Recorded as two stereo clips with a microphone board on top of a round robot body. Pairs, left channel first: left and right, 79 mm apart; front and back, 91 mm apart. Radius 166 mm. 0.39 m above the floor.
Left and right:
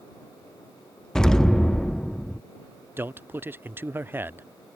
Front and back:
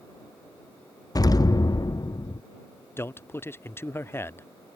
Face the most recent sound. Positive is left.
turn(degrees=-45)